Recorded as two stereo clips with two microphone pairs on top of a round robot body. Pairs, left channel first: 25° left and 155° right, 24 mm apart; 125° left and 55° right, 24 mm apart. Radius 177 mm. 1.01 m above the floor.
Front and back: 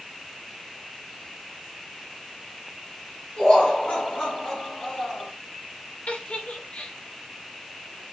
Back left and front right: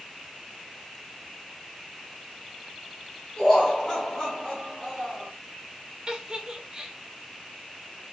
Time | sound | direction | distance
3.4 | laughter | 50° left | 2.5 m
6.1 | a giggle | straight ahead | 0.9 m